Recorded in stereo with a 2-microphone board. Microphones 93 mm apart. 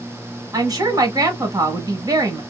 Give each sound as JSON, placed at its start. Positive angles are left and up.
{"t": 0.5, "sound": "a woman speaking", "side_deg": -45, "distance_m": 1.3}